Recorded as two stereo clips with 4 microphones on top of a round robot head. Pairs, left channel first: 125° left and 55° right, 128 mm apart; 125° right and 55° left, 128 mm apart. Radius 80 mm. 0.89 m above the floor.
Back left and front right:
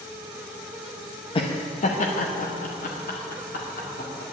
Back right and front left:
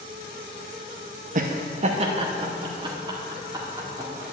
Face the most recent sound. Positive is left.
turn(degrees=120)